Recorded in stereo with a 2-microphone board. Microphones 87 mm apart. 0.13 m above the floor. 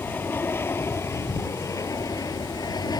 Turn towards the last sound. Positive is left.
turn(degrees=50)  # may be behind; listen again after turning